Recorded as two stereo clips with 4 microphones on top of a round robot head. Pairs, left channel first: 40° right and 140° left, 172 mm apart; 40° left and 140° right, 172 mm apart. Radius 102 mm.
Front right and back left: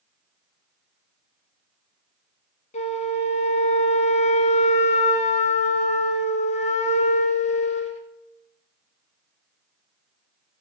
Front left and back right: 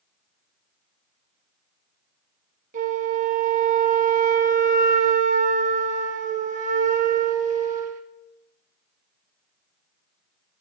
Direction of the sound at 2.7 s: 95° right.